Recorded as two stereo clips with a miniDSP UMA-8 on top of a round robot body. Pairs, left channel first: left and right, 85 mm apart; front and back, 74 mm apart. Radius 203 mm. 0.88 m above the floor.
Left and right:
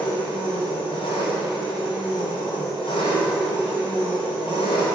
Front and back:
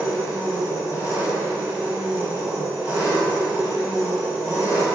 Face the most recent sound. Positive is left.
turn(degrees=115)